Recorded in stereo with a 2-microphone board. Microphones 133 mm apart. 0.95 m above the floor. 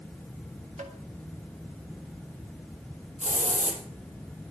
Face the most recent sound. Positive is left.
turn(degrees=-65)  # may be behind; listen again after turning